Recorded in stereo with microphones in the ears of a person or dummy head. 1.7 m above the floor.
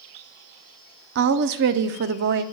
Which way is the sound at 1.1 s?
60° right (ahead or behind).